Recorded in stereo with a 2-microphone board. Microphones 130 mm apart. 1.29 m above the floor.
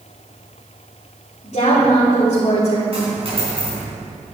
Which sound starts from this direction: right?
A dropped coin, at 2.9 s.